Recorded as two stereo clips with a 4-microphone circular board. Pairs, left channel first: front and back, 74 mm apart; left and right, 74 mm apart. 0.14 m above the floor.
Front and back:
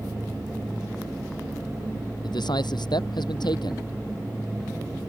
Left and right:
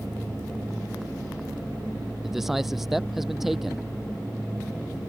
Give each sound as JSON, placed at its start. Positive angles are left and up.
{"t": 2.2, "sound": "a man speaking", "azimuth_deg": -5}